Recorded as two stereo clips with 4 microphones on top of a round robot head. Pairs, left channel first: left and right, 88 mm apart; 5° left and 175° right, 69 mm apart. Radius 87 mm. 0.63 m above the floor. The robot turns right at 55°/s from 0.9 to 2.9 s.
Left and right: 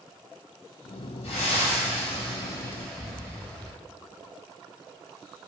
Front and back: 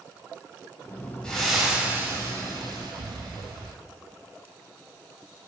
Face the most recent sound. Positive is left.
turn(degrees=170)